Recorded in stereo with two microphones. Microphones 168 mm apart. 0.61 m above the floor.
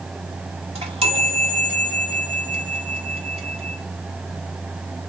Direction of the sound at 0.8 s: 35° right (ahead or behind).